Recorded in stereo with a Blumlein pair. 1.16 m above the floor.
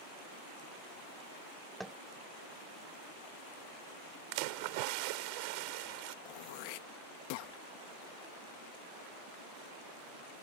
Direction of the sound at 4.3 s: 45° right.